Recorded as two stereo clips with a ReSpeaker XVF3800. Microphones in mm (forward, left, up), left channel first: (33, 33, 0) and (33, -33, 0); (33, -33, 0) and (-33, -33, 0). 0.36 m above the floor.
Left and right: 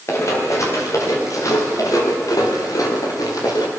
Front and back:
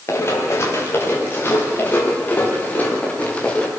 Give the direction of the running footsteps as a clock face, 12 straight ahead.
10 o'clock.